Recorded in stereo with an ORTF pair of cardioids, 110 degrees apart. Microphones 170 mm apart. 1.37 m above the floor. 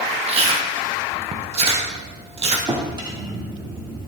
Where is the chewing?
35° right, 1.5 m.